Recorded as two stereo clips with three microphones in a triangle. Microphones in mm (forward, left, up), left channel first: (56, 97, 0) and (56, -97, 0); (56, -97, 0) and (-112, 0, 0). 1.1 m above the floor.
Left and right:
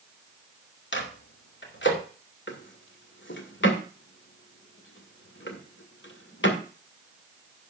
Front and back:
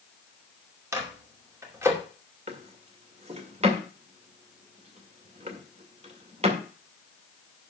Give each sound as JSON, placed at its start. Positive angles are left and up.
{"t": 0.9, "sound": "a microwave", "azimuth_deg": 75, "distance_m": 2.5}
{"t": 2.5, "sound": "a drawer", "azimuth_deg": 95, "distance_m": 2.0}